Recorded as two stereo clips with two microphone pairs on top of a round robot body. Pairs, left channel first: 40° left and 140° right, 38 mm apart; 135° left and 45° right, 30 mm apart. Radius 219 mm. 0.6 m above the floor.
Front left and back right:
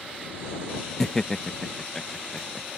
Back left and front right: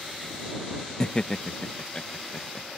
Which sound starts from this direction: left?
Laughter, at 1.0 s.